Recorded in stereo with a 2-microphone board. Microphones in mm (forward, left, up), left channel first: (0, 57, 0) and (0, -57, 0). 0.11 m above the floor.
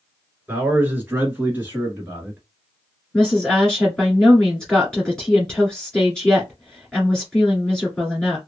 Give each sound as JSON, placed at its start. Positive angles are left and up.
{"t": 0.5, "sound": "a man speaking", "side_deg": -15, "distance_m": 1.3}
{"t": 3.1, "sound": "a woman speaking", "side_deg": 5, "distance_m": 1.8}